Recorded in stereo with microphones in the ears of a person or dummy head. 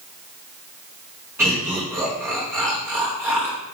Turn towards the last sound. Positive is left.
turn(degrees=-15)  # may be behind; listen again after turning